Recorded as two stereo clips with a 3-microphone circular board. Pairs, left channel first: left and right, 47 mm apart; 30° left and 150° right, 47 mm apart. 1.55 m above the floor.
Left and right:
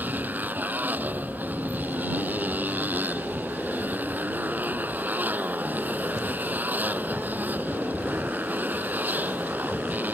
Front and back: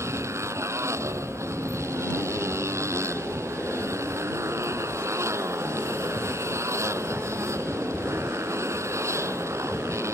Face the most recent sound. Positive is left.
turn(degrees=-145)